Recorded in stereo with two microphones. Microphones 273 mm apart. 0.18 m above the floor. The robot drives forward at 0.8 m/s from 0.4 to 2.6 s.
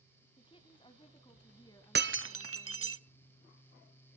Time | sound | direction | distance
0.4 | a woman speaking | 20° left (ahead or behind) | 1.5 m
1.9 | breaking glass | 40° right (ahead or behind) | 0.6 m